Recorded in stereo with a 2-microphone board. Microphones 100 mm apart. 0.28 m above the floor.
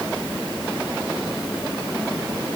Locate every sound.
Only background noise.